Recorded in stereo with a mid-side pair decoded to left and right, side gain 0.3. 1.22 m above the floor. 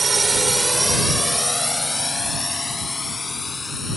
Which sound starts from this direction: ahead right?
A drone, at 0.0 s.